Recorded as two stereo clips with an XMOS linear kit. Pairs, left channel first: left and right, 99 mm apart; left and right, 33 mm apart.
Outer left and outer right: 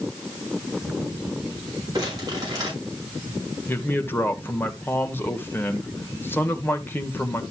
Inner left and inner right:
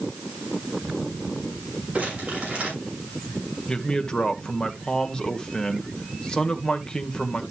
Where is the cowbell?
I don't hear a cowbell.